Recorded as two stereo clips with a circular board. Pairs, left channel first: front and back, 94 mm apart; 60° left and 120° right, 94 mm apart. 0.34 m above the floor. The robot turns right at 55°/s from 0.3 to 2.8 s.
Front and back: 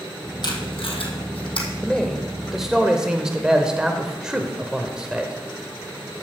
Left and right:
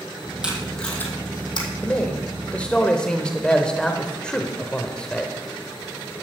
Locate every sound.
0.4 s tape being pulled: 40° right, 2 m; by 1.7 s 30° left, 2 m
1.8 s a man speaking: 60° left, 0.8 m; by 5.3 s 115° left, 0.8 m